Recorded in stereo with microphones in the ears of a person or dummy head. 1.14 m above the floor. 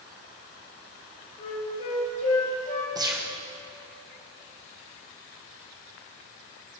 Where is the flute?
40° left (ahead or behind), 3 m.